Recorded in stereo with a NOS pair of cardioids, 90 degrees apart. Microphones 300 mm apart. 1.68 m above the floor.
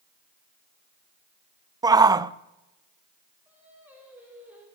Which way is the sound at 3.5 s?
5° right.